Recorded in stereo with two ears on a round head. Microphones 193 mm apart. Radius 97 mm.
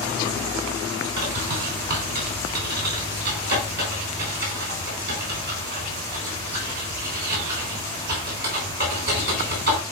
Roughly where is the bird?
Right.